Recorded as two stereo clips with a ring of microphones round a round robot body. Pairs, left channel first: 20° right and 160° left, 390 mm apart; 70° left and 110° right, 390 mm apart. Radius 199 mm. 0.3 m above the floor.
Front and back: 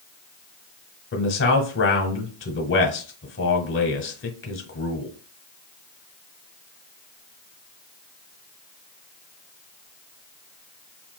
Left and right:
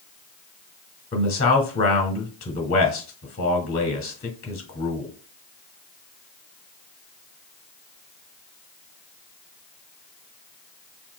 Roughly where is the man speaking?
Ahead.